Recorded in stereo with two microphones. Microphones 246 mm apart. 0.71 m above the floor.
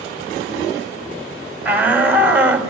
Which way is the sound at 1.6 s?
5° right (ahead or behind).